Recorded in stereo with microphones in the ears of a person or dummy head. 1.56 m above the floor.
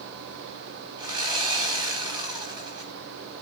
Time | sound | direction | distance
1.0 | sawing | 25° right (ahead or behind) | 1.8 m